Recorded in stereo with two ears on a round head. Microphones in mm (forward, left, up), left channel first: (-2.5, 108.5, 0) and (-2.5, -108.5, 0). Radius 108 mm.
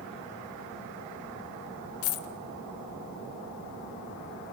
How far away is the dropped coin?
About 0.7 m.